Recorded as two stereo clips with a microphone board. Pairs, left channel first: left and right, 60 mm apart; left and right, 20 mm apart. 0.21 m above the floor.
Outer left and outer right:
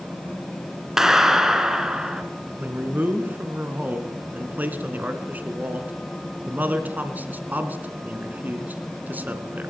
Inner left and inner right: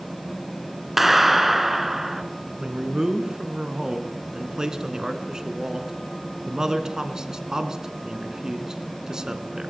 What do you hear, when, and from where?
1.0 s a clap: 5° right (ahead or behind), 2.5 m
2.6 s a man speaking: 30° right (ahead or behind), 3 m